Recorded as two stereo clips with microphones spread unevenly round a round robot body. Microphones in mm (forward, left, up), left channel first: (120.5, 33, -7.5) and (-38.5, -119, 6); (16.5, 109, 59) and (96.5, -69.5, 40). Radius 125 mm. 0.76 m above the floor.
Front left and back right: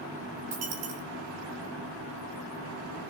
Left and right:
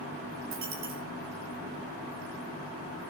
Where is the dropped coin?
120° right, 3.5 m.